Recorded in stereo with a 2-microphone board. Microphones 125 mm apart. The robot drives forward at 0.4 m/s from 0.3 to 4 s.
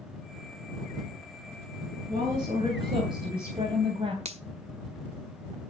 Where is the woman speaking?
45° right (ahead or behind), 4 m; by 4.2 s 50° right (ahead or behind), 3.5 m.